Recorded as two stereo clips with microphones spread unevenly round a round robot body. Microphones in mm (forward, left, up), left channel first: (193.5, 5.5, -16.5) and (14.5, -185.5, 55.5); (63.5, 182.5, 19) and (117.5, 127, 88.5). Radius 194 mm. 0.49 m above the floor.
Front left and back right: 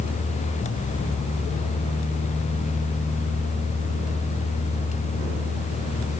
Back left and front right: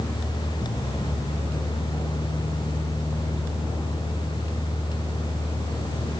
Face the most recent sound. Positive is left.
No sound to turn to.